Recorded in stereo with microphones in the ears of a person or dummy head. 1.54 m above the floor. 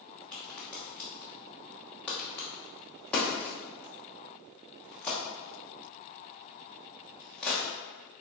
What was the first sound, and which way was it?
A crack, centre (ahead or behind).